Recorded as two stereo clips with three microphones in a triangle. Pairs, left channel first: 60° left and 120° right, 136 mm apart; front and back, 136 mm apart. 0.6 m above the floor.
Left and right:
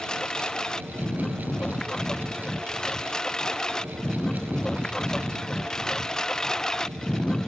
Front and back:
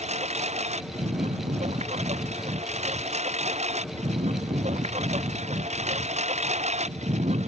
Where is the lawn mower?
145° left.